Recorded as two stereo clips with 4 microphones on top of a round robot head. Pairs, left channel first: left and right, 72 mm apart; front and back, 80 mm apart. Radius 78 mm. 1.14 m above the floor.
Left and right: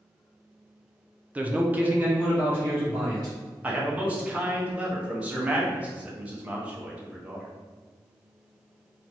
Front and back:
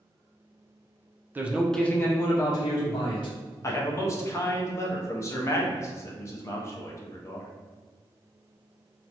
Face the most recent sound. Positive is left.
turn(degrees=-25)